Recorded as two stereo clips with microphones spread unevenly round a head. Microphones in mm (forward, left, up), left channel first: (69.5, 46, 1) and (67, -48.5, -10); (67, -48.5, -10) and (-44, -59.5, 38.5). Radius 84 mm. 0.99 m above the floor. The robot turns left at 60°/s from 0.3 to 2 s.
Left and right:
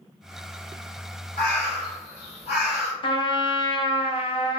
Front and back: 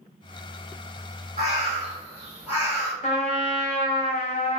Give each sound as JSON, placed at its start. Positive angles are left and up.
{"t": 1.4, "sound": "a bird", "azimuth_deg": 135, "distance_m": 1.4}
{"t": 3.0, "sound": "a trumpet", "azimuth_deg": 60, "distance_m": 0.6}